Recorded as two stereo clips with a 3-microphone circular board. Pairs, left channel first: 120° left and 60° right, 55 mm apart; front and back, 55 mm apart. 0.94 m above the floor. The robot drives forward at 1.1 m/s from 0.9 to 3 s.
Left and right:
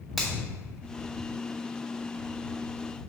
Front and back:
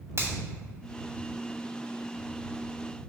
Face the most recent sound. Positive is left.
turn(degrees=-165)